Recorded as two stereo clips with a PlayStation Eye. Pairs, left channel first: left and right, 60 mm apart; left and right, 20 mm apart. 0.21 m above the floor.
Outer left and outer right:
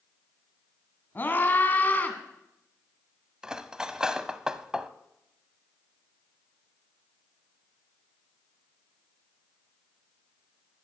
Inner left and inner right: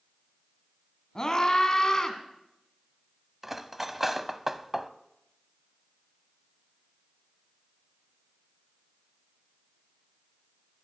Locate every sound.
1.1 s a scream: 35° left (ahead or behind), 2 m; by 2.2 s 30° left (ahead or behind), 2.5 m
3.4 s cutlery clinking: 15° right (ahead or behind), 0.7 m